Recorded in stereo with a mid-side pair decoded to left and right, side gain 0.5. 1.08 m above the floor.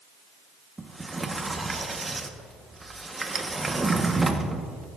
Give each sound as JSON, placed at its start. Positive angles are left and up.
{"t": 0.8, "sound": "a sliding door", "azimuth_deg": -20, "distance_m": 1.3}